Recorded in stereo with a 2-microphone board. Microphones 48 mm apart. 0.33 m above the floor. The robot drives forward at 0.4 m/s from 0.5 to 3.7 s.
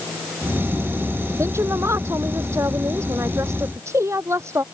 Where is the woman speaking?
85° right.